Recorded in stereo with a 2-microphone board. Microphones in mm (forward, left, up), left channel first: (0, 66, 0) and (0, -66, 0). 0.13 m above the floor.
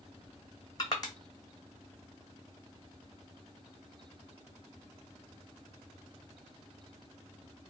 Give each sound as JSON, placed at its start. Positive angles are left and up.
{"t": 0.8, "sound": "crushing", "side_deg": 30, "distance_m": 1.0}